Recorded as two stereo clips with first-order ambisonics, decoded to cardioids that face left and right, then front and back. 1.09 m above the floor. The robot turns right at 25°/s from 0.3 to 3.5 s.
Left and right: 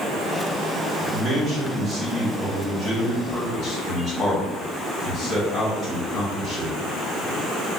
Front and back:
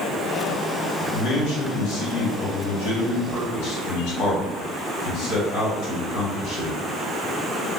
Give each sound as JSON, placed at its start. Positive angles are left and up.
{"t": 1.1, "sound": "a man speaking", "azimuth_deg": -35, "distance_m": 1.3}